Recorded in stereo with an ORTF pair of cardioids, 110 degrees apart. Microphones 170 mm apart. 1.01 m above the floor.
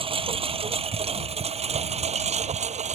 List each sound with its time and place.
0.0 s a lawn mower: 30° right; by 3.0 s 45° right